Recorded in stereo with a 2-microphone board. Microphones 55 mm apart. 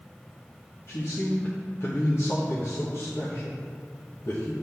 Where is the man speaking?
55° left (ahead or behind), 1.2 m.